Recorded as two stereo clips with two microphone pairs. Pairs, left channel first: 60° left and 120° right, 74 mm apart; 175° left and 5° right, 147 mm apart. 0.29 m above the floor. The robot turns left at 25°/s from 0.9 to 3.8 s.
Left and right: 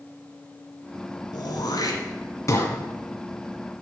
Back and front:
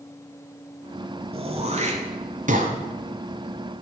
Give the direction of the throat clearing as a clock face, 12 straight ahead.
10 o'clock.